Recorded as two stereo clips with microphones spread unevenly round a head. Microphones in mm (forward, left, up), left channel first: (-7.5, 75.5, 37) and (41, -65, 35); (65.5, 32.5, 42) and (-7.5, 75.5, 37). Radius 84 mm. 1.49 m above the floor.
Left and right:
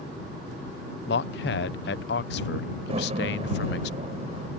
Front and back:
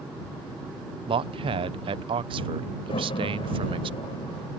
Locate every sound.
1.1 s a man speaking: 130° left
2.9 s a door slam: 20° right